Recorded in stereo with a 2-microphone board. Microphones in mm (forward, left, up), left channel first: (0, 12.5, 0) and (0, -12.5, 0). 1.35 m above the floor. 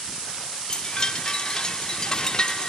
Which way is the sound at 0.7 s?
25° left (ahead or behind).